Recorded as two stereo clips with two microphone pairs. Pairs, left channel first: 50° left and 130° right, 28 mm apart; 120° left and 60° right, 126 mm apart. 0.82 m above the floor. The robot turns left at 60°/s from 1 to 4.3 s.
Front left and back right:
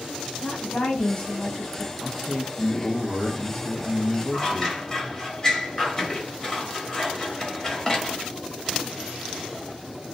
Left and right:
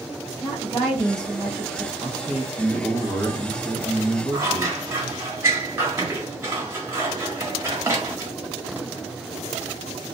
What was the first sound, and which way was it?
A woman speaking, 30° left.